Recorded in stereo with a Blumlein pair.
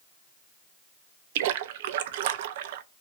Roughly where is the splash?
Ahead right.